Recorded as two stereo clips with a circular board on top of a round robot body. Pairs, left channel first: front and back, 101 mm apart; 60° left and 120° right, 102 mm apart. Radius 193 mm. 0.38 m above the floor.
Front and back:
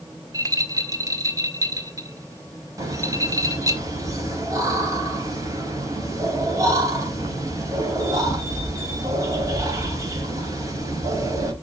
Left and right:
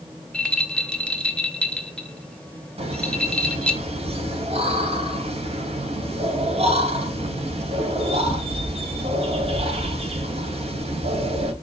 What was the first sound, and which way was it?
A rattle, 135° left.